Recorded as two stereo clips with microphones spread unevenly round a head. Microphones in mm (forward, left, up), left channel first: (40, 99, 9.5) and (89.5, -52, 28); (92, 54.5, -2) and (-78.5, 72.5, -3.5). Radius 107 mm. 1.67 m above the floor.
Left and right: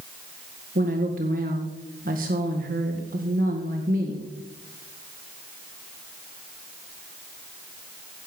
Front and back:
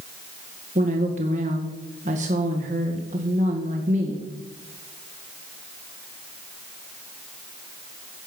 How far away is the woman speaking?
About 1.8 m.